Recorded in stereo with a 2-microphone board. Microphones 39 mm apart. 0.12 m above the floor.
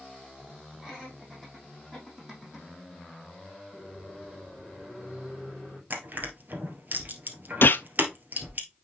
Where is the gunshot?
65° left (ahead or behind), 0.5 m.